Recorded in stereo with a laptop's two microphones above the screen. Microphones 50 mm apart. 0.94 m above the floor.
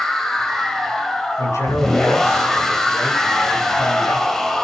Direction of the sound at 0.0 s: 10° left (ahead or behind).